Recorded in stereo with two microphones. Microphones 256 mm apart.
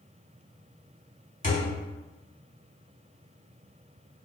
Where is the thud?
30° left (ahead or behind), 0.8 m.